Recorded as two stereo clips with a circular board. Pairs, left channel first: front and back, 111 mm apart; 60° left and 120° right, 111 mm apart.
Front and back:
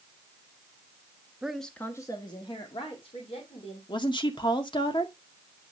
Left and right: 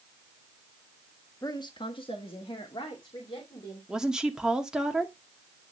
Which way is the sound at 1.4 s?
100° left.